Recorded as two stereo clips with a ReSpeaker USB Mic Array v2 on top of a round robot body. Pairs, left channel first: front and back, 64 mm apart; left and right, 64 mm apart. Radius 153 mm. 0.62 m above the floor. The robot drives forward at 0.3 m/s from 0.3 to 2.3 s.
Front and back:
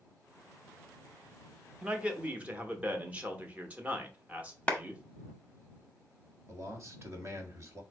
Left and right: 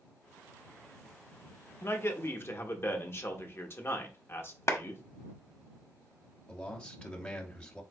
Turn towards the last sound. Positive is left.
turn(degrees=160)